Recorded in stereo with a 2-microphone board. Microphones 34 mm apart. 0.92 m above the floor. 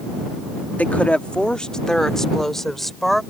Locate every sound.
0.8 s a woman speaking: 50° left (ahead or behind); by 3.2 s 5° left (ahead or behind)